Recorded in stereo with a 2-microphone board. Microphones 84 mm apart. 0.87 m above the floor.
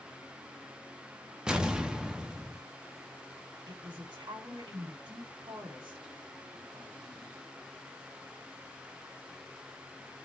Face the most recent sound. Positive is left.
turn(degrees=-70)  # may be behind; listen again after turning